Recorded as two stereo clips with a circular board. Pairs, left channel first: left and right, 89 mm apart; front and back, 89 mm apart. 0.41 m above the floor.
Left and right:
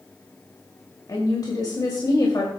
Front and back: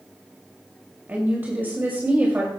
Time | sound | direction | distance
1.1 | a woman speaking | 115° left | 2 m